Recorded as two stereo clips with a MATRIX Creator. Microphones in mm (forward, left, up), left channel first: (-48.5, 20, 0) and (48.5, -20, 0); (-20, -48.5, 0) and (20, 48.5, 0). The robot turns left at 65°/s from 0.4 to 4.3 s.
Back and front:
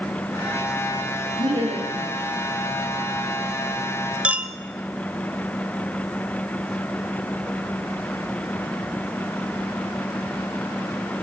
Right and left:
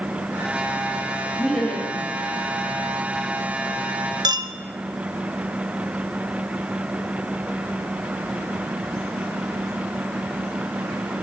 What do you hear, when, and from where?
1.4 s laughter: 15° right, 6.5 m; by 2.0 s 55° right, 6.5 m
4.2 s a clink: 50° left, 0.7 m; by 4.5 s 45° left, 0.7 m